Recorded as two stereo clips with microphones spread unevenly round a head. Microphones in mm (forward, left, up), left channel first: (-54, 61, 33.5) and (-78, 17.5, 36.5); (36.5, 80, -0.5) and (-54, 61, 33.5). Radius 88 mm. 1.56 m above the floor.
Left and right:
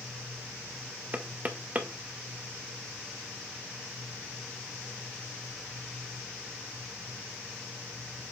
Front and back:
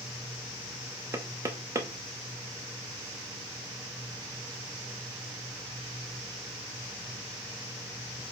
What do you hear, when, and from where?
1.1 s knocking: 160° right, 0.8 m